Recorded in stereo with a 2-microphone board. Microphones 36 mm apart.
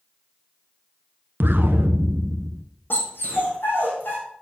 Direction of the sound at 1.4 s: 70° right (ahead or behind).